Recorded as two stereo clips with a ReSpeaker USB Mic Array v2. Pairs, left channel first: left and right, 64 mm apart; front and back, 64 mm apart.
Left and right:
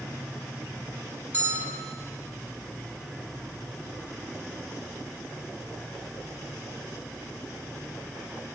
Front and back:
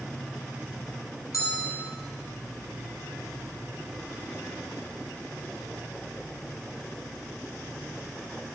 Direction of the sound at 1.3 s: 35° right.